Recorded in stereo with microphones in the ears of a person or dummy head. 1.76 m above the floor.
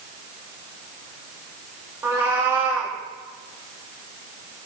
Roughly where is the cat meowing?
Centre.